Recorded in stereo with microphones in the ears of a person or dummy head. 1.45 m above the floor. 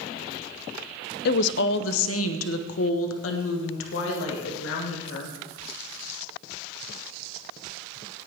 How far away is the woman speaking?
About 0.6 m.